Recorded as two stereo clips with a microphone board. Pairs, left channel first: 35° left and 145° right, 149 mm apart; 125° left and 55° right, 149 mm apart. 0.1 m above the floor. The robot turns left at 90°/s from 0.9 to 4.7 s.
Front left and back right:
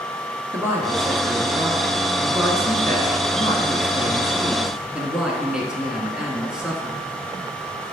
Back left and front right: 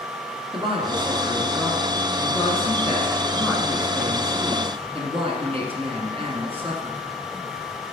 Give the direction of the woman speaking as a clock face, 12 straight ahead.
3 o'clock.